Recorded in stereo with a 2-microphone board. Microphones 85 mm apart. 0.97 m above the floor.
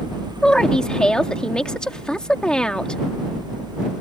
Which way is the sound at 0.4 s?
10° left (ahead or behind).